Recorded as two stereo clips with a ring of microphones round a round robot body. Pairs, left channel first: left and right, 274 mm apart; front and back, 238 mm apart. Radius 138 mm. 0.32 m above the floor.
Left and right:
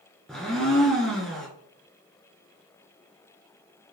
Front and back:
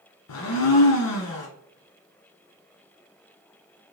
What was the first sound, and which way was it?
A blender, straight ahead.